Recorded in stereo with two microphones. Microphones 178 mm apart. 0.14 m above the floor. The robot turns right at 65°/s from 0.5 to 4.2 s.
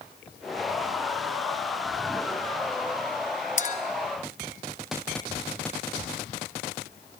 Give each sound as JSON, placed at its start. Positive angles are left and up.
{"t": 3.6, "sound": "a clink", "side_deg": 45, "distance_m": 1.6}